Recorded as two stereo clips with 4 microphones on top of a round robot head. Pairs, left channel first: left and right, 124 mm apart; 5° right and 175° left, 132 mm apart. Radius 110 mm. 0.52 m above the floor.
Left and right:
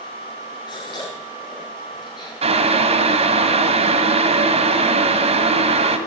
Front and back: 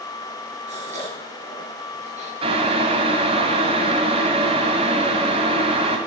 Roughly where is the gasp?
Behind left.